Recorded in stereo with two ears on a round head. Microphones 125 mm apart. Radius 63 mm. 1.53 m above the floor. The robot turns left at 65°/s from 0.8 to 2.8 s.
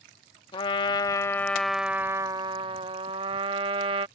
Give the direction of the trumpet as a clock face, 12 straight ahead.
10 o'clock.